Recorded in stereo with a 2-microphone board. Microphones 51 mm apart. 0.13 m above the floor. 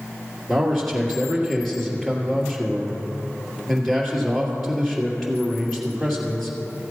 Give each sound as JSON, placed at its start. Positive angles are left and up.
{"t": 0.5, "sound": "a man speaking", "side_deg": 5, "distance_m": 2.5}